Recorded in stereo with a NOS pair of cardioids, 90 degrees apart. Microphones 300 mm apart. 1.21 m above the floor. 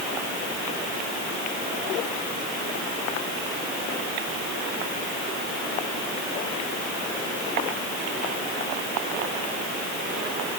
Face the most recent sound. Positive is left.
No sound to turn to.